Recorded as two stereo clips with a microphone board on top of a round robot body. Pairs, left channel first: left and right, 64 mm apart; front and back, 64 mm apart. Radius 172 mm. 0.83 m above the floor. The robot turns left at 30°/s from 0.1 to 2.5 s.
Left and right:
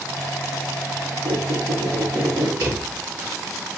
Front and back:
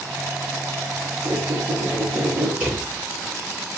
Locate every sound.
1.2 s a squeak: 105° right, 2.5 m; by 2.5 s 140° right, 2.5 m
2.6 s a drawer: 115° right, 2.5 m